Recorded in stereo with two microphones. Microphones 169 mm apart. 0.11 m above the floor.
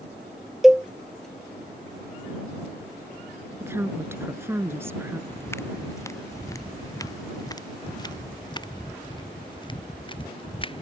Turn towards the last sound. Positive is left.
turn(degrees=30)  # may be behind; listen again after turning